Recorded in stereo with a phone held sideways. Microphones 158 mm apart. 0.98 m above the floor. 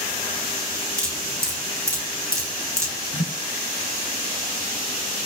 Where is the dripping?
20° right (ahead or behind), 6.5 m.